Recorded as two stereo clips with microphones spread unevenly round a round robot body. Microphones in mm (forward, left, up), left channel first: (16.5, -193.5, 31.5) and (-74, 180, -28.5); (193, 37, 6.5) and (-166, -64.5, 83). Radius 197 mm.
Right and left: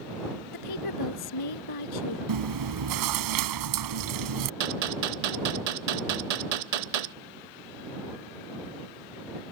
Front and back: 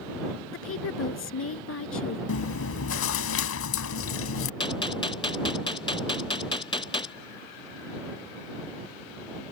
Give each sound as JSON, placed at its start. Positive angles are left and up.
{"t": 0.5, "sound": "a woman speaking", "azimuth_deg": -40}
{"t": 2.3, "sound": "chewing", "azimuth_deg": 65}
{"t": 4.6, "sound": "a gunshot", "azimuth_deg": 95}